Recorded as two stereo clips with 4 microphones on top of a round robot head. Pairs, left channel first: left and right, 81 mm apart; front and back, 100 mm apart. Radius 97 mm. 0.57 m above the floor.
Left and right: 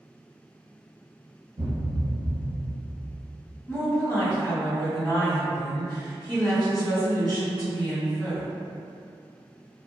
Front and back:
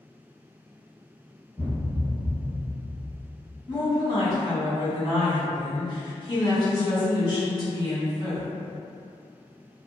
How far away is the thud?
About 1.0 m.